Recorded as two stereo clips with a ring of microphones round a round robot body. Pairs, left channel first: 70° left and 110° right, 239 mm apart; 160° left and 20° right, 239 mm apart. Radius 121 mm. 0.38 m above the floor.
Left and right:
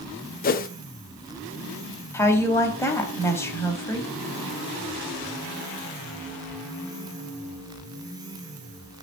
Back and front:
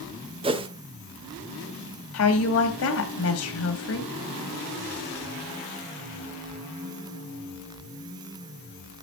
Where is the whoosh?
35° left, 0.9 m.